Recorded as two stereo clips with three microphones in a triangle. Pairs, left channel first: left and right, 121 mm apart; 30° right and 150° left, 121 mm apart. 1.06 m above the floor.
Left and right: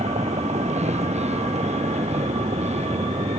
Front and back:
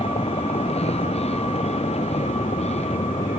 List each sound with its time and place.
0.0 s a vehicle: 65° right; by 3.4 s 60° right